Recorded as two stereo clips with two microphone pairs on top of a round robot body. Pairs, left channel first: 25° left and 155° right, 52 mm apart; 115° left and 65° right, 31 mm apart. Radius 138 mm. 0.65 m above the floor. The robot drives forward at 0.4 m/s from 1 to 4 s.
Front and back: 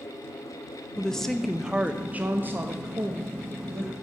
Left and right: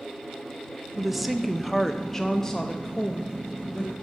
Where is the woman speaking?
30° left, 0.6 m; by 3.9 s 175° left, 1.2 m.